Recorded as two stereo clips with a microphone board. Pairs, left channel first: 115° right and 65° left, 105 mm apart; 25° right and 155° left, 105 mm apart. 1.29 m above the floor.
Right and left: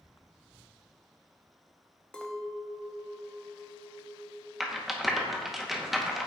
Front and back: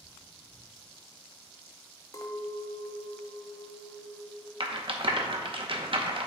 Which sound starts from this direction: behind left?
A rattle, at 4.6 s.